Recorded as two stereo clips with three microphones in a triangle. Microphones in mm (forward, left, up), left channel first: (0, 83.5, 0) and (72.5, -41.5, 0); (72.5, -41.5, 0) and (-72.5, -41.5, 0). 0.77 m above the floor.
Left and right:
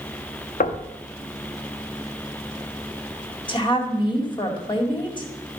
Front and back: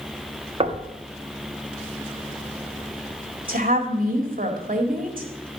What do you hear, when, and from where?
0.6 s knocking: 135° left, 1.0 m
3.5 s a woman speaking: 175° left, 1.9 m